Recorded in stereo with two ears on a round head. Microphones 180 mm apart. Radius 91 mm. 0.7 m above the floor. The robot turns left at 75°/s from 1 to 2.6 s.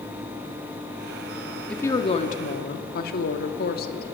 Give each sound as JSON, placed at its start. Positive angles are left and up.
{"t": 1.7, "sound": "a woman speaking", "azimuth_deg": 175, "distance_m": 1.7}